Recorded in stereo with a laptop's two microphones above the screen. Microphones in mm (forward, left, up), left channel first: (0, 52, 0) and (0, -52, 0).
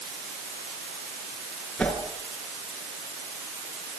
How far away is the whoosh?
About 6.5 m.